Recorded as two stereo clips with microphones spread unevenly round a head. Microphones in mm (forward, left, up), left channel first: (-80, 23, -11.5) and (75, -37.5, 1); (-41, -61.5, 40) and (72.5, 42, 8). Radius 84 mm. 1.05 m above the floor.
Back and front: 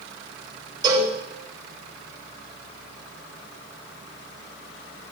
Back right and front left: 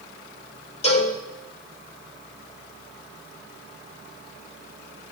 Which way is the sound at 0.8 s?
90° right.